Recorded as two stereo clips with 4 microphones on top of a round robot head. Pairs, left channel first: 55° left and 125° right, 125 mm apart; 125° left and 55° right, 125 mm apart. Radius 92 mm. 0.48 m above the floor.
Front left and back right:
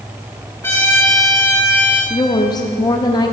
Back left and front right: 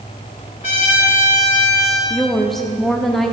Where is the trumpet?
125° left, 3 m.